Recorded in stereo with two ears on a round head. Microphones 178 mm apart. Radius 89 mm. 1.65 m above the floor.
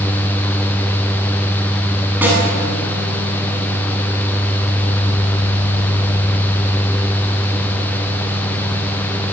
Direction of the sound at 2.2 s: 10° right (ahead or behind).